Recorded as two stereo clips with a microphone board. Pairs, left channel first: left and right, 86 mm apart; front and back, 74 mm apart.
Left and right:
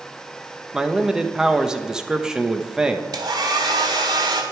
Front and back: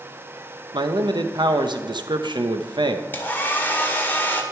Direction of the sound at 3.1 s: 60° right.